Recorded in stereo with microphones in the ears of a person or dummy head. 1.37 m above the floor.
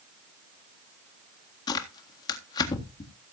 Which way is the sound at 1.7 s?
30° left (ahead or behind).